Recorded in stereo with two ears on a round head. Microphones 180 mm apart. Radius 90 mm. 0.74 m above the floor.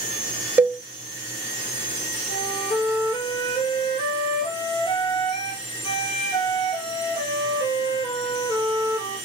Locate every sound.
0.6 s a cowbell: 10° right (ahead or behind), 0.6 m
2.3 s a flute: 25° left (ahead or behind), 3 m